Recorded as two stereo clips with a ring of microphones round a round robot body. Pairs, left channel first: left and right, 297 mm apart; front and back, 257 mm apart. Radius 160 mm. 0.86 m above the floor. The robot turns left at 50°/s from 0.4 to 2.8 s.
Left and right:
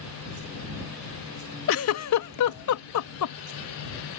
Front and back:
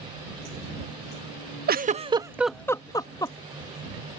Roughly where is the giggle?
Behind left.